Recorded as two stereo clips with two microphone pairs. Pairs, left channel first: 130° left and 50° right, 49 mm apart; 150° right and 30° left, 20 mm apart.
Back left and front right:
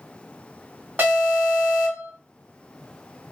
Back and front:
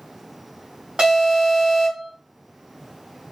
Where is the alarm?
Straight ahead, 4 m.